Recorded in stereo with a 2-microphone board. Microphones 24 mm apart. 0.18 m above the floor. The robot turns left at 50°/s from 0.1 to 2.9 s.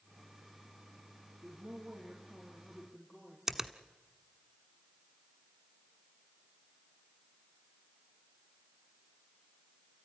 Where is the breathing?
I don't hear breathing.